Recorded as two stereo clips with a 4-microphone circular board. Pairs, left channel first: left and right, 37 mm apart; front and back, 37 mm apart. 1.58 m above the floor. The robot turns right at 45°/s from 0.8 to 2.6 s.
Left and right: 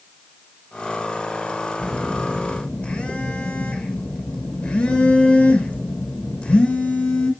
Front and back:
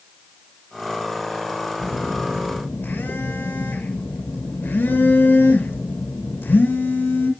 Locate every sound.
1.8 s a phone buzzing: straight ahead, 1.8 m; by 7.3 s 35° left, 1.8 m